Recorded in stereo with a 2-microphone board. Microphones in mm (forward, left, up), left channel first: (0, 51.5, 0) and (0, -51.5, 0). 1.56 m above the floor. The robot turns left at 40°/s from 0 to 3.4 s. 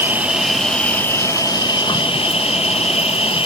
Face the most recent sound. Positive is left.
turn(degrees=65)